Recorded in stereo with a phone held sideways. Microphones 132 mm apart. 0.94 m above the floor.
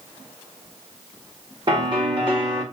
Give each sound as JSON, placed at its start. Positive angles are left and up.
{"t": 1.7, "sound": "a piano", "side_deg": -40, "distance_m": 1.9}